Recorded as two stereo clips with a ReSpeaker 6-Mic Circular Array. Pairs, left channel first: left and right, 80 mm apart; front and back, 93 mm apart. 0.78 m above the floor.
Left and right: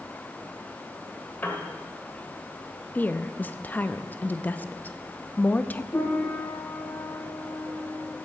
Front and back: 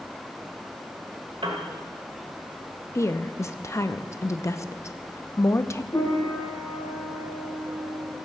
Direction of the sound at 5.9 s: 40° left.